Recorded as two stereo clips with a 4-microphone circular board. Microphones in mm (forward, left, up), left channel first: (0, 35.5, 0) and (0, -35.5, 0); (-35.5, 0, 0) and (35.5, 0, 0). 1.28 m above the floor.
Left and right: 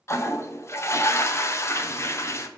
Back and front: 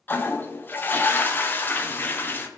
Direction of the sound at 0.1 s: 125° left.